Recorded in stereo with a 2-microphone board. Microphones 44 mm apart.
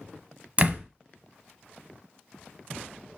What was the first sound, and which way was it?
A door slam, 30° right (ahead or behind).